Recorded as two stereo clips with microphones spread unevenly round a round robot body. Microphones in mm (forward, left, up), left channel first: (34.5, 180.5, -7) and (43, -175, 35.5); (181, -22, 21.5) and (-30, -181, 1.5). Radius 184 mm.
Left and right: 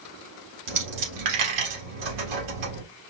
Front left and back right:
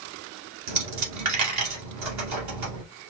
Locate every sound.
0.7 s a dropped coin: 130° right, 2 m